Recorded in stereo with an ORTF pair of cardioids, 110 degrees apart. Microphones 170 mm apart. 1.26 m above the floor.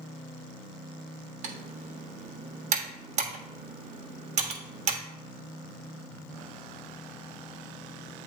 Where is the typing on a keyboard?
50° right, 1.4 m.